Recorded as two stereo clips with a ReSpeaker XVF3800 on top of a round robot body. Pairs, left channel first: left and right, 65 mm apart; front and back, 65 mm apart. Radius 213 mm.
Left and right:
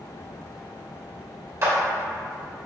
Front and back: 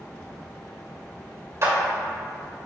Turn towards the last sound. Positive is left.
turn(degrees=-135)